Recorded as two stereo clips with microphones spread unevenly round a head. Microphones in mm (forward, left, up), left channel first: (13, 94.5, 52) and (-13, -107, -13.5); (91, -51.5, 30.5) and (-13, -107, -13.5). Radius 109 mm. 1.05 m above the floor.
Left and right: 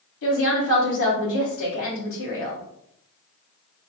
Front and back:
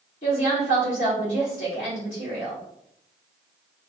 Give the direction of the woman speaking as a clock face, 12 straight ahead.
9 o'clock.